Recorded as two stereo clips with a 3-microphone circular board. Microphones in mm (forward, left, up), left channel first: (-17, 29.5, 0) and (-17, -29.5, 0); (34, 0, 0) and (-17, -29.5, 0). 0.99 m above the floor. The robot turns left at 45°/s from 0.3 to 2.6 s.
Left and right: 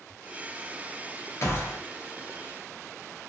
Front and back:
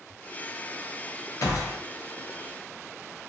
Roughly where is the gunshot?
Ahead left.